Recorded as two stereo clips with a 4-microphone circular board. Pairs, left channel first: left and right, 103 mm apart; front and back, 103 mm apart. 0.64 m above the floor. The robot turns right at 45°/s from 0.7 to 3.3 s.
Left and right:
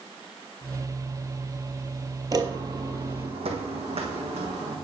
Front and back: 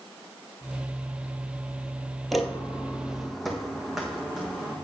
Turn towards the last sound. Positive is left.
turn(degrees=-95)